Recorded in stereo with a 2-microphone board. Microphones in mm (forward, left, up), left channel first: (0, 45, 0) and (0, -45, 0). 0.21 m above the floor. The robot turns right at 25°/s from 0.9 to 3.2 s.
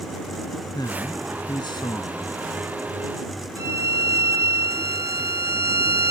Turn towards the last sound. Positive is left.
turn(degrees=-35)  # may be behind; listen again after turning